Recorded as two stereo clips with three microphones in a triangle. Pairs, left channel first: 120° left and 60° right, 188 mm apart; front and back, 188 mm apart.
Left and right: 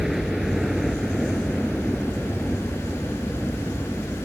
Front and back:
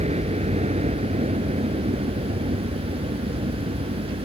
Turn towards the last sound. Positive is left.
turn(degrees=-150)